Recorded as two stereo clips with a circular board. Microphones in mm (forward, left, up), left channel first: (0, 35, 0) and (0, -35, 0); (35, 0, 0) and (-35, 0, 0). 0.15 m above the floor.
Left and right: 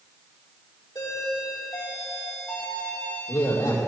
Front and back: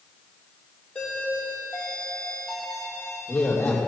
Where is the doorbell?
75° left, 5.5 m.